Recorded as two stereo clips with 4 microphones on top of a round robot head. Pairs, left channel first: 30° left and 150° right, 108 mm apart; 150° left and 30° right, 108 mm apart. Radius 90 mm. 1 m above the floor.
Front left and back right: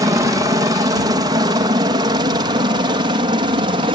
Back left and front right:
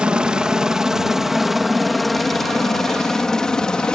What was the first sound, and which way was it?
A helicopter, 110° right.